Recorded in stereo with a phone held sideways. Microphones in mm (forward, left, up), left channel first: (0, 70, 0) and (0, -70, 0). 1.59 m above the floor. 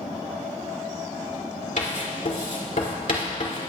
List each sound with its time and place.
1.8 s writing: 65° left (ahead or behind), 2 m